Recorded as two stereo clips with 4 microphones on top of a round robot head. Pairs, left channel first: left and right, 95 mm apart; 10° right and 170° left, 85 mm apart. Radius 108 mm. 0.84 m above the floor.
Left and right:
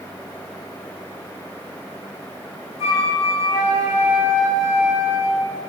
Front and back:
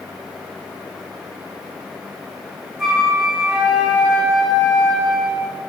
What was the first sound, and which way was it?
A flute, 80° left.